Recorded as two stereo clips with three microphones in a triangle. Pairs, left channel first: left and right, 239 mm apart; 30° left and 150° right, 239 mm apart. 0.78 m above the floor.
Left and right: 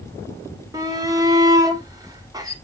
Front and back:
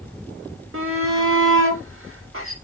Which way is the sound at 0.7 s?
165° right.